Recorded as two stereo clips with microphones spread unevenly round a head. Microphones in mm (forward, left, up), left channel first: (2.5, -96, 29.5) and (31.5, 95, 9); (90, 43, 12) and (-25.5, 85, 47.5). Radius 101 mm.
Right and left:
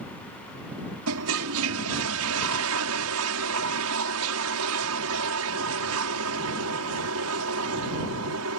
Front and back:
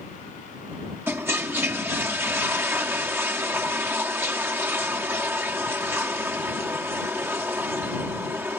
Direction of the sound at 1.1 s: 90° left.